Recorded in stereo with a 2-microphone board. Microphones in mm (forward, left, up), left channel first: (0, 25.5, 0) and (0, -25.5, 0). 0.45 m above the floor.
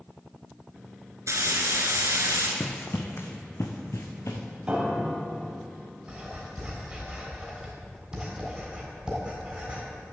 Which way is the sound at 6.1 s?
15° right (ahead or behind).